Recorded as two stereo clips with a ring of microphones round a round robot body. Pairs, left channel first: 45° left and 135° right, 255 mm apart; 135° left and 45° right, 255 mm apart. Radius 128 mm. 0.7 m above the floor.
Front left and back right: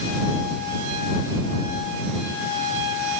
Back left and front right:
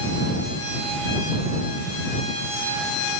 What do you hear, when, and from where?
Only background noise.